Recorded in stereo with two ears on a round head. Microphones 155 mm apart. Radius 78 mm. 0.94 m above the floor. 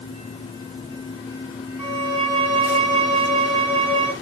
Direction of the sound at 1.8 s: 30° right (ahead or behind).